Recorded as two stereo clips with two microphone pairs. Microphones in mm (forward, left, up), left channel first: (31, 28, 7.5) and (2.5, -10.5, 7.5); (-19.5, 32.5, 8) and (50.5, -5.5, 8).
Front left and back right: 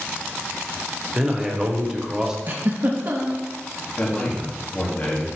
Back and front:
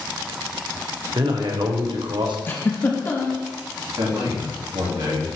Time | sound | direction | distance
1.1 | a man speaking | 50° right | 1.3 m
2.5 | a giggle | 155° right | 1.1 m
4.0 | a man speaking | 15° right | 2.5 m